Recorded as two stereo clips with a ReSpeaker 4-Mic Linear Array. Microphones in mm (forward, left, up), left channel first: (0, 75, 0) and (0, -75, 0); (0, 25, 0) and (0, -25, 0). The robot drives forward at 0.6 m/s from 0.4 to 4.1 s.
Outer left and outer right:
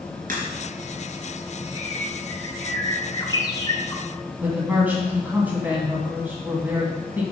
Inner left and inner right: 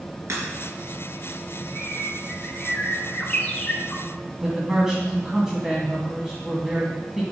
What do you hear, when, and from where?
0.3 s a crack: 60° right (ahead or behind), 3.5 m
1.8 s a bird: 25° left (ahead or behind), 1.7 m
4.4 s a man speaking: 10° right (ahead or behind), 1.9 m